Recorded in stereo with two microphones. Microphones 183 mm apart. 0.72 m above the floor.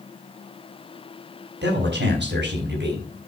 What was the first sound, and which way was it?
A man speaking, 75° right (ahead or behind).